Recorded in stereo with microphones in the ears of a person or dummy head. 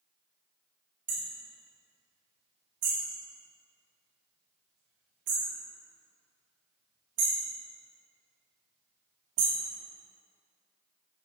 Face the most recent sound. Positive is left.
turn(degrees=-45)  # may be behind; listen again after turning